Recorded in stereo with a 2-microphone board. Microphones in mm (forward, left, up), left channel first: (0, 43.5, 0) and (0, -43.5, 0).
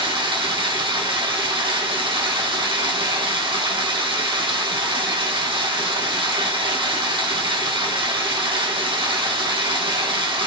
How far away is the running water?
About 2.5 m.